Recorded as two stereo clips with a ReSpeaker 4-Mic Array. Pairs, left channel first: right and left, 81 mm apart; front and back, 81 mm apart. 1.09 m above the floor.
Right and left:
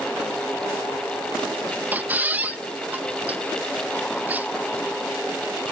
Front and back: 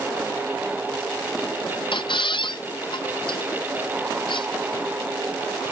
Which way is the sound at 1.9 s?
20° left.